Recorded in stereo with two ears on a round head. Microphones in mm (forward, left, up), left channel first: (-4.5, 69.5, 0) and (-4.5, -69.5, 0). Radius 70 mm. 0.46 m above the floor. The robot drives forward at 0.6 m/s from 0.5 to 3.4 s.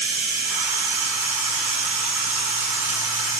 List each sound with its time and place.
0.0 s running water: 65° right (ahead or behind), 3 m; by 3.4 s 45° right (ahead or behind), 4 m